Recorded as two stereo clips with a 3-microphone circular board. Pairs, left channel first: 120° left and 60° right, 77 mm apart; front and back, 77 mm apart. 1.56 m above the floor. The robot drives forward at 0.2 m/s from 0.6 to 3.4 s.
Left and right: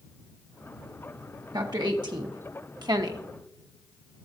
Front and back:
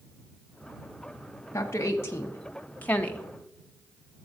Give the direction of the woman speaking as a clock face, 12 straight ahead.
2 o'clock.